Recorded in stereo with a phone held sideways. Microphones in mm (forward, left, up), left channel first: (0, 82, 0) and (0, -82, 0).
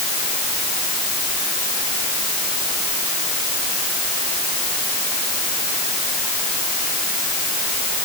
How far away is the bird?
No bird in this recording.